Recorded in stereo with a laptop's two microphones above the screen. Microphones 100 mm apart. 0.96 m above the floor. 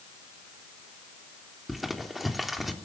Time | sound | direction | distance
1.7 | crumpling | centre (ahead or behind) | 3 m